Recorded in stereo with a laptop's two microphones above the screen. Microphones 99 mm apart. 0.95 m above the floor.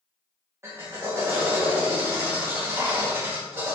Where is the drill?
25° right (ahead or behind), 1.7 m.